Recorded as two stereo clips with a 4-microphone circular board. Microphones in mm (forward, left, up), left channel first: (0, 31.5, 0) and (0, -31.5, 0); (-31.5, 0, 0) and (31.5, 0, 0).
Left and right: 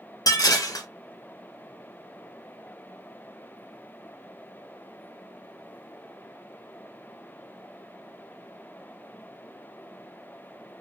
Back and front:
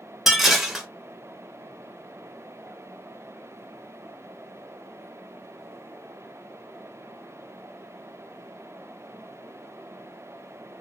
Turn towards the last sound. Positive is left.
turn(degrees=85)